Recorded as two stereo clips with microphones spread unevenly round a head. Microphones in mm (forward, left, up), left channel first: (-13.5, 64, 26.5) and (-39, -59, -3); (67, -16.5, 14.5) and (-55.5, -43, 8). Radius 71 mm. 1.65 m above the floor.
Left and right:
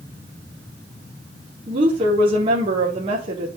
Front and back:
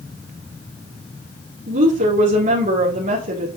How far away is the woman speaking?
About 3.5 m.